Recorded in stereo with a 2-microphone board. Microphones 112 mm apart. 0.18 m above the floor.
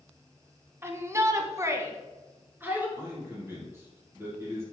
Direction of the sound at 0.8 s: 20° right (ahead or behind).